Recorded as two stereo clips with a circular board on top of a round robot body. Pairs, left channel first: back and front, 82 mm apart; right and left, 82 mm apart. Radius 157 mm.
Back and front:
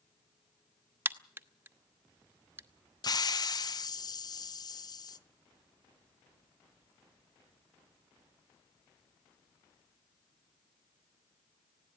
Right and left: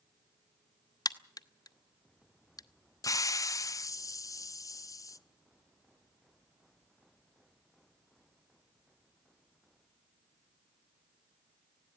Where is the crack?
60° right, 1.2 m.